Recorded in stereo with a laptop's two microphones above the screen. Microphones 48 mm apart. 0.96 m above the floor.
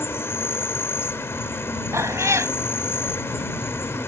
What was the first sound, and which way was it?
An insect, 60° left (ahead or behind).